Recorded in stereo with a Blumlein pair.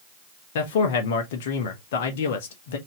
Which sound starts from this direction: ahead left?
A man speaking, at 0.6 s.